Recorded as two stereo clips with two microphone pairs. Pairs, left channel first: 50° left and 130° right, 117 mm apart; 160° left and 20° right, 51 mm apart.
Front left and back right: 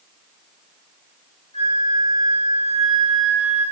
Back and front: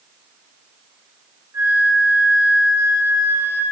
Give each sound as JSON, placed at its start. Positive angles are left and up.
{"t": 1.5, "sound": "a flute", "azimuth_deg": 15, "distance_m": 8.0}